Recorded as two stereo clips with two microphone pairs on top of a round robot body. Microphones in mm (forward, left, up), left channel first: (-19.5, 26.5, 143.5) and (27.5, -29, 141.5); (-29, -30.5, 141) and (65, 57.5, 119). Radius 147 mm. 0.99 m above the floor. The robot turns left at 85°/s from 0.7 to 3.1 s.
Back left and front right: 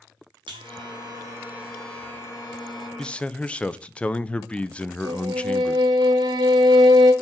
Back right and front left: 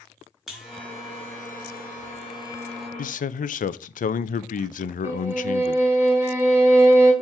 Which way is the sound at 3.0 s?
145° right.